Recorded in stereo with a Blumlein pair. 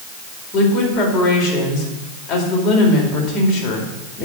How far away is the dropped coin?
I don't hear a dropped coin.